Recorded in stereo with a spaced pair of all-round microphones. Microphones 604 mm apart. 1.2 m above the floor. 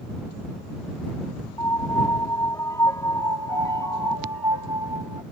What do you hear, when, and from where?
1.6 s a piano: 5° left (ahead or behind)
3.2 s a piano: 40° left (ahead or behind)